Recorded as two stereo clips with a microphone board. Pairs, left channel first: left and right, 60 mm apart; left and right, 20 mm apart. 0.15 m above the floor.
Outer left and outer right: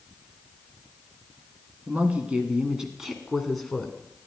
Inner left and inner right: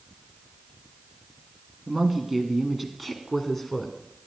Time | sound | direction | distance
1.9 | a woman speaking | 25° right (ahead or behind) | 1.7 m